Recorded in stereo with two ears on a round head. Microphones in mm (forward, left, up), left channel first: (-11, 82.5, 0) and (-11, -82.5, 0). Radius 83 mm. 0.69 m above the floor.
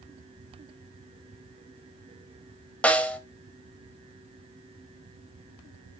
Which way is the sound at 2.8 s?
5° left (ahead or behind).